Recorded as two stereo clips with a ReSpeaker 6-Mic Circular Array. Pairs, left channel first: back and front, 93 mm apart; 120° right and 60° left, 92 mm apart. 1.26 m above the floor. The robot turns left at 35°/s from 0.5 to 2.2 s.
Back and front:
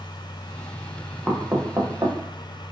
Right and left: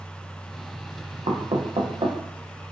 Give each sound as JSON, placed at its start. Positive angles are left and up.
{"t": 1.3, "sound": "knocking", "azimuth_deg": 75, "distance_m": 0.7}